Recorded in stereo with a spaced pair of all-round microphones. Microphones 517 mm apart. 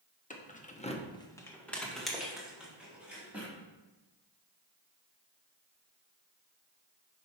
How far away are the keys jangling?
About 0.9 m.